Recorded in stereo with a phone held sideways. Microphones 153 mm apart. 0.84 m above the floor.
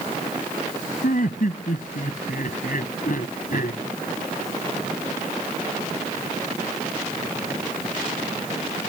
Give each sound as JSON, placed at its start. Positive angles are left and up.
{"t": 1.0, "sound": "laughter", "side_deg": 65}